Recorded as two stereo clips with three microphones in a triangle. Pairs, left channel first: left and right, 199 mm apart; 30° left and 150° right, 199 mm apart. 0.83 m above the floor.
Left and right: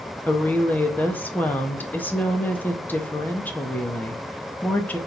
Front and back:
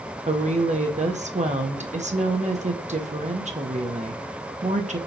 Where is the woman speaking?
170° left, 0.7 m.